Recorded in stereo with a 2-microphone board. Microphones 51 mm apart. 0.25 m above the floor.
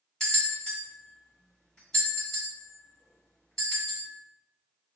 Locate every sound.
0.2 s a bell: 10° left (ahead or behind), 1.9 m